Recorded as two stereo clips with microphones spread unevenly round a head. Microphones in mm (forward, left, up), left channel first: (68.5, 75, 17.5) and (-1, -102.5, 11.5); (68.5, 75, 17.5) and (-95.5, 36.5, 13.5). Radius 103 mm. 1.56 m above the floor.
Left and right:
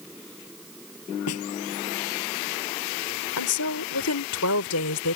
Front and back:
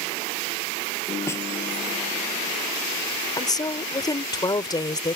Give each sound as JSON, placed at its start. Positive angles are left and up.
{"t": 1.3, "sound": "a snare drum", "azimuth_deg": 85}
{"t": 3.4, "sound": "a woman speaking", "azimuth_deg": 80}